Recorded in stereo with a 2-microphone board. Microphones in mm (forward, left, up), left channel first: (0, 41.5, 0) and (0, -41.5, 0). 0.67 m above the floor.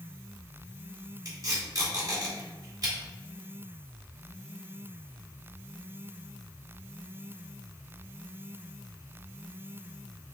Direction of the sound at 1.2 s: 45° right (ahead or behind).